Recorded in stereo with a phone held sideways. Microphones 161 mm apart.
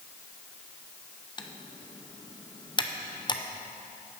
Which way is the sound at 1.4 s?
30° left (ahead or behind).